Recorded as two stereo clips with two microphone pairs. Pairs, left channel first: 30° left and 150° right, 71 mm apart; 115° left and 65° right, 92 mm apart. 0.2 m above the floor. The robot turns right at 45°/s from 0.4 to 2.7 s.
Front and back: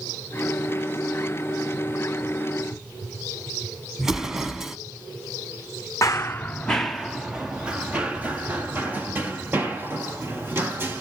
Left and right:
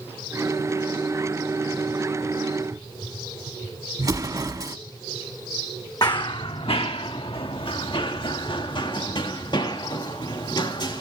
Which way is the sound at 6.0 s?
75° left.